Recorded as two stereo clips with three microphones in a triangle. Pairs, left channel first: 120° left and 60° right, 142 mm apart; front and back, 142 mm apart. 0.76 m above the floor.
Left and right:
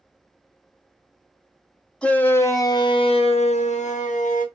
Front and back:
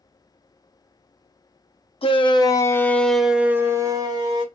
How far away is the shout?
About 0.9 m.